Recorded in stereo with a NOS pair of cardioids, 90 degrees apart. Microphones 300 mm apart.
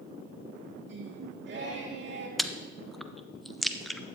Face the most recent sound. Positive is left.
turn(degrees=0)